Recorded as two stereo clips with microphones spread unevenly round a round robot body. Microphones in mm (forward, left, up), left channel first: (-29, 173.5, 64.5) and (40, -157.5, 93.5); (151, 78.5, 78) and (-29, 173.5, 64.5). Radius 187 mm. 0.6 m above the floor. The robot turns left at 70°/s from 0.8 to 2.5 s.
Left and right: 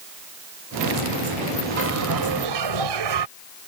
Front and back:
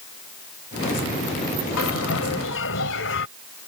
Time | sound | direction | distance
1.8 | a bell | 15° right | ?